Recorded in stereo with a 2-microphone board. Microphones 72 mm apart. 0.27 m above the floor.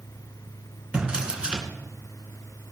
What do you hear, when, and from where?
0.9 s a drawer: 15° right (ahead or behind), 2 m